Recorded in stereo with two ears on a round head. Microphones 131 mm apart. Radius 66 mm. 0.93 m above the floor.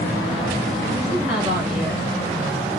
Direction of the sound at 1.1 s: 10° right (ahead or behind).